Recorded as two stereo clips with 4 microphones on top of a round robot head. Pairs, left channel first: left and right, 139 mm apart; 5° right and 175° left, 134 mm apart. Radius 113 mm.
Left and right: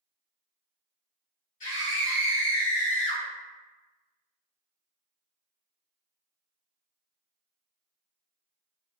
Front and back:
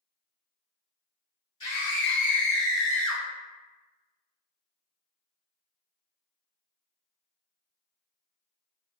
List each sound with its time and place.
1.6 s a scream: 45° left, 1.7 m; by 3.2 s 100° left, 0.5 m